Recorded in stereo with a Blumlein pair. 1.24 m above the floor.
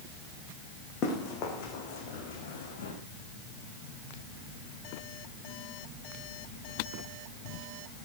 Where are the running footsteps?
35° left, 5 m; by 2.9 s 60° left, 5.5 m.